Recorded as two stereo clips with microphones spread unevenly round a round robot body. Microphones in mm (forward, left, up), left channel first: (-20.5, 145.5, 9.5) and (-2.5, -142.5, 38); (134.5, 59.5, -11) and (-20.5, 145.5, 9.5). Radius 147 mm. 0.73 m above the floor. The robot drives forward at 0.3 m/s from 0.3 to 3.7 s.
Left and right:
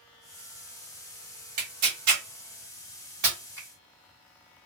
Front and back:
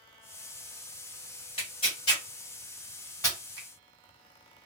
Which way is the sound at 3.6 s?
175° left.